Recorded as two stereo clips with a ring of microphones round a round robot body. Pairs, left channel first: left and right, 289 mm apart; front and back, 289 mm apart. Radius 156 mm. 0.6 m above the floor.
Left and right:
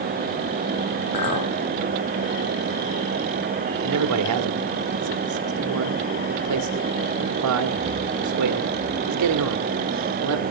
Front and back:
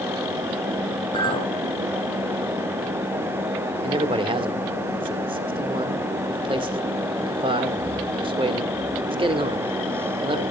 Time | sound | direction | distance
1.1 | a clink | 75° left | 2 m
3.8 | a man speaking | 110° right | 1.5 m